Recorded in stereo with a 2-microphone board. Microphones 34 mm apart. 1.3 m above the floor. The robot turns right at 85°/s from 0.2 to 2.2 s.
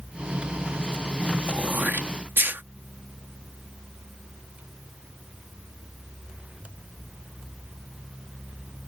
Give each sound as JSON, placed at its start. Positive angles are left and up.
{"t": 1.5, "sound": "throat clearing", "side_deg": -30}